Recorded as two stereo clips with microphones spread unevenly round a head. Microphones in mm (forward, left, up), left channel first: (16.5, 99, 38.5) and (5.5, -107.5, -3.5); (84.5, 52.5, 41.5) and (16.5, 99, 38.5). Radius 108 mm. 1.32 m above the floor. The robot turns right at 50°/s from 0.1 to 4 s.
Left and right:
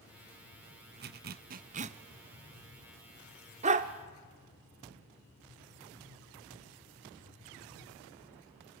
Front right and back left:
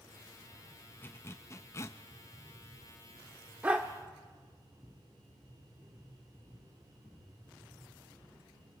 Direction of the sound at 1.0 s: 85° right.